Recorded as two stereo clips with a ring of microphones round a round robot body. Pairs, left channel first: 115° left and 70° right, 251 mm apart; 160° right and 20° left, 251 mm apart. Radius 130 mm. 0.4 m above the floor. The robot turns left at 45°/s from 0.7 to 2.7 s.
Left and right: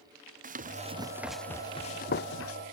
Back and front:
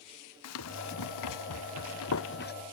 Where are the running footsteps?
130° right; by 2.5 s 150° left.